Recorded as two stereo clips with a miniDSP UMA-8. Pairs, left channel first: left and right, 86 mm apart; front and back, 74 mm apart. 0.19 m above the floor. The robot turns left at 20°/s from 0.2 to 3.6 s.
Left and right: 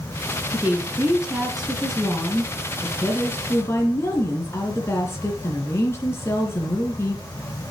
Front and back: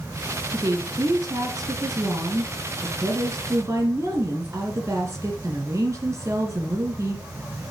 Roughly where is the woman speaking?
Behind right.